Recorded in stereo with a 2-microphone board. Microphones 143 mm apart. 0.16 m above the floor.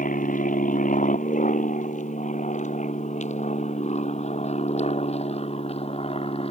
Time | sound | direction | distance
0.0 | an aircraft | 70° left (ahead or behind) | ?